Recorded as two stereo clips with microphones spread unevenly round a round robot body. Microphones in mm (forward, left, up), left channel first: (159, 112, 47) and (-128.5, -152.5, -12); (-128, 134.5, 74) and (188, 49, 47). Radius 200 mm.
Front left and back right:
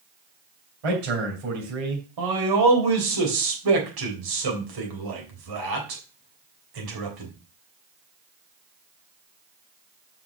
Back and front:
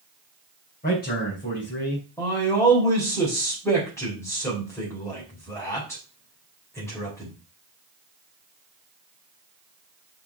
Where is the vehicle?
I don't hear a vehicle.